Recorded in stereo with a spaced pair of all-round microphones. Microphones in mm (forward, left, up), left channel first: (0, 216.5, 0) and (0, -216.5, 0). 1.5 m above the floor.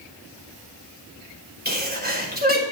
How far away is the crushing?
No crushing in this recording.